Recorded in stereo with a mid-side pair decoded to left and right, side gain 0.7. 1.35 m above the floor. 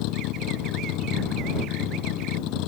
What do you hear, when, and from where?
0.0 s a vehicle: 65° left